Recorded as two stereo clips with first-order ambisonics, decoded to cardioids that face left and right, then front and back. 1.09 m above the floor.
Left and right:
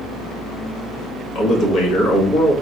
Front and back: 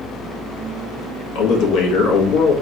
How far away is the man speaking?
About 1.7 m.